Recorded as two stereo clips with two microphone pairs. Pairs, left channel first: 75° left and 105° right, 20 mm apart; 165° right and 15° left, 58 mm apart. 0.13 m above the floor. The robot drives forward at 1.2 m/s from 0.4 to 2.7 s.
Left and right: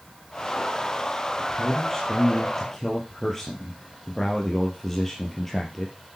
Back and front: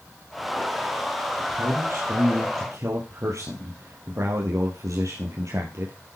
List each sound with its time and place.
1.4 s a man speaking: straight ahead, 4.5 m